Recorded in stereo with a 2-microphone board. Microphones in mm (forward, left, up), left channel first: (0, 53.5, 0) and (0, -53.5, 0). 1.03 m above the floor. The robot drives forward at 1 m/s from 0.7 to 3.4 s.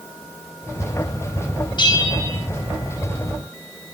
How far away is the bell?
About 1.1 m.